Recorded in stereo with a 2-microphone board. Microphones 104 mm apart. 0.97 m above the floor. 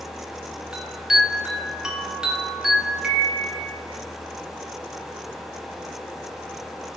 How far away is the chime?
About 1.2 m.